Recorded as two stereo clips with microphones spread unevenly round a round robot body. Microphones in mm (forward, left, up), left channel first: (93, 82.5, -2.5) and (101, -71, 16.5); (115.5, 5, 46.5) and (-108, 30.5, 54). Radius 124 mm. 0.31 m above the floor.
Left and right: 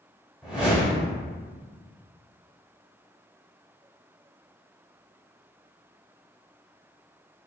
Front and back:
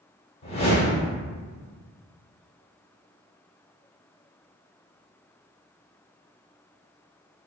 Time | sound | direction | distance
0.4 | a whoosh | 10° left | 1.2 m